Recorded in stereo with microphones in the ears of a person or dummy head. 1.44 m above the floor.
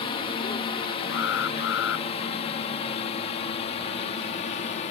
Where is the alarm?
85° left.